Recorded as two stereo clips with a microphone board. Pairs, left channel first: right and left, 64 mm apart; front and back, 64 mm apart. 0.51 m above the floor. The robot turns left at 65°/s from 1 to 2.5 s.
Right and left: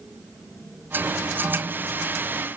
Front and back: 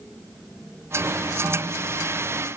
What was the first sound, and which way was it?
Only background noise.